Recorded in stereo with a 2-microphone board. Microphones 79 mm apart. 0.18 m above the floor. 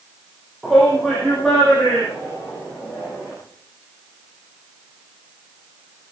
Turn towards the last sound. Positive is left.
turn(degrees=0)  # may be behind; listen again after turning